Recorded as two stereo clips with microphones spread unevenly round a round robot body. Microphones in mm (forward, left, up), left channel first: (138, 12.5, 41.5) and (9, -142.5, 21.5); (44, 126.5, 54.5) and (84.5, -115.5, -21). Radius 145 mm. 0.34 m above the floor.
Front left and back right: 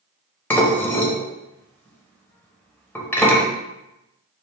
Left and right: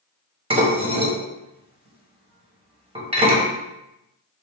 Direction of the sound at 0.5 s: 35° right.